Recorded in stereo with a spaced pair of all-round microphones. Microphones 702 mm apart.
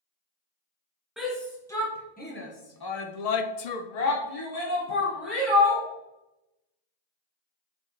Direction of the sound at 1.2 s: Centre (ahead or behind).